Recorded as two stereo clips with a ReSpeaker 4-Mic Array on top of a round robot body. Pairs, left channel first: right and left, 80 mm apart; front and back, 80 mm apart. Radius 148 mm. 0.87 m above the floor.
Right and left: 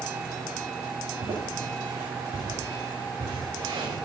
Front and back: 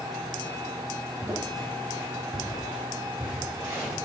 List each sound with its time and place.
1.2 s footsteps: 95° left, 2.5 m; by 4.0 s 105° left, 6 m